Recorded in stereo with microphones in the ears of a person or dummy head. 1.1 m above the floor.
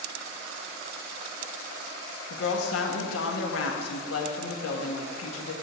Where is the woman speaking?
80° left, 1.3 m.